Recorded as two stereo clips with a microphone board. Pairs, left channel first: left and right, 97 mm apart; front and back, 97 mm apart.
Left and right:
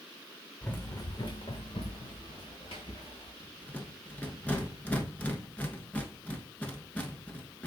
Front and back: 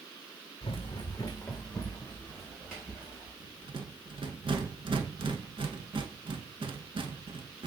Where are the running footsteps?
10° left, 0.7 m; by 3.3 s 105° left, 2.5 m.